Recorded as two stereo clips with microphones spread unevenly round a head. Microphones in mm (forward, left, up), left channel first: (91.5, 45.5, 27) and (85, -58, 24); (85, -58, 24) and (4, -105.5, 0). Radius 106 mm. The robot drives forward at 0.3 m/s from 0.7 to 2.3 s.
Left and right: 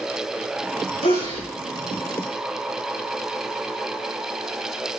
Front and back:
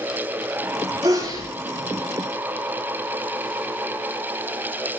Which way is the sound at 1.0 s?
140° left.